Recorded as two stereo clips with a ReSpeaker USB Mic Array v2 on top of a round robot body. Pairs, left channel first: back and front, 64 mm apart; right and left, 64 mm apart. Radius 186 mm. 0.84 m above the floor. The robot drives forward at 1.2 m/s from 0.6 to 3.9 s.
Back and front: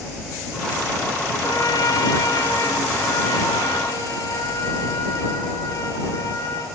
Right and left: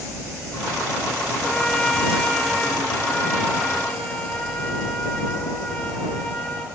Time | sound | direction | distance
1.4 | a trumpet | 165° right | 1.7 m